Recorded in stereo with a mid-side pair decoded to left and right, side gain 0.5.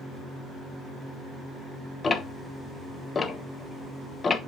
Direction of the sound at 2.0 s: 30° left.